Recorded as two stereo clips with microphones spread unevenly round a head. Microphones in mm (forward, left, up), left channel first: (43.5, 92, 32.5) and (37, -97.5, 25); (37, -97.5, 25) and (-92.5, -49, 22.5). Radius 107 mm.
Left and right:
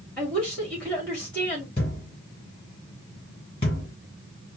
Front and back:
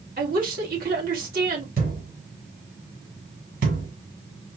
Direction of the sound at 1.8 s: 155° left.